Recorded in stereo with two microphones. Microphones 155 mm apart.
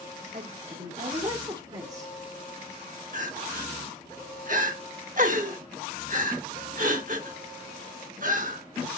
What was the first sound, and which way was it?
A woman speaking, 50° right (ahead or behind).